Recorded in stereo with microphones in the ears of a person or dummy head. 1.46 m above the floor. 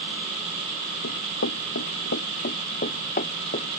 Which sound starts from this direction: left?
Running footsteps, at 1.0 s.